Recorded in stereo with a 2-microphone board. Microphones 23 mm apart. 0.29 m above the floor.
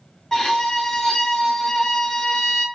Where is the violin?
20° left (ahead or behind), 1.1 m.